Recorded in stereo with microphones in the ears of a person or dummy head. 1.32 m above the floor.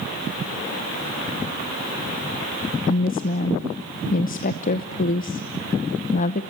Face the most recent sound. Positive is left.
turn(degrees=40)  # may be behind; listen again after turning